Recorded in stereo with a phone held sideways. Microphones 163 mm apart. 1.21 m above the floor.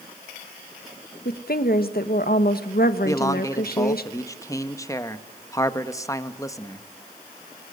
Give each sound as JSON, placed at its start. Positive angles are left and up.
{"t": 1.2, "sound": "a woman speaking", "side_deg": 70, "distance_m": 1.4}
{"t": 3.0, "sound": "a man speaking", "side_deg": 20, "distance_m": 1.3}